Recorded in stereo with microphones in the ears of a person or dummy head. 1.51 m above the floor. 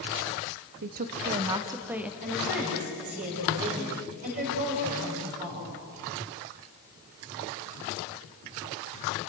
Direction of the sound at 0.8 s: 50° right (ahead or behind).